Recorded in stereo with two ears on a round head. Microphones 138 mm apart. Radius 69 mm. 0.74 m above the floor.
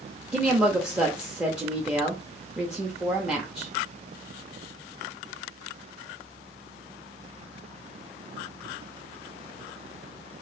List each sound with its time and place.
0.3 s a woman speaking: 5° right (ahead or behind), 0.8 m